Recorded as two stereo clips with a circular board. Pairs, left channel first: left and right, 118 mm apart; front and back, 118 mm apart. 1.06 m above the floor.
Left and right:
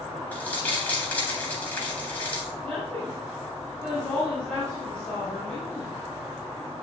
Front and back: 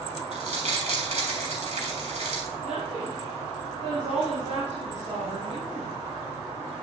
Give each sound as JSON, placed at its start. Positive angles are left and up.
{"t": 0.3, "sound": "crumpling", "azimuth_deg": 165, "distance_m": 3.5}
{"t": 2.6, "sound": "a woman speaking", "azimuth_deg": 170, "distance_m": 5.0}